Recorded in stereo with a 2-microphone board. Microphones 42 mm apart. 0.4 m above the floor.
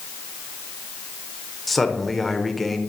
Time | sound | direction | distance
1.7 | a man speaking | centre (ahead or behind) | 1.1 m